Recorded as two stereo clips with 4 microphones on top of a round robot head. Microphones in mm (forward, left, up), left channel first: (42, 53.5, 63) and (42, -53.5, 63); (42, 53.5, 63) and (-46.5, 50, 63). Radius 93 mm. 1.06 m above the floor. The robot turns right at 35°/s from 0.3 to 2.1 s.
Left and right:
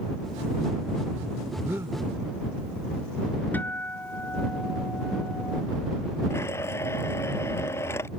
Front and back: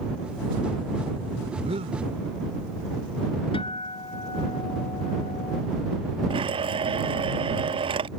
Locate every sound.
1.6 s breathing: 170° right; by 2.0 s 155° right
3.5 s a guitar: 15° left
6.3 s a blender: 160° left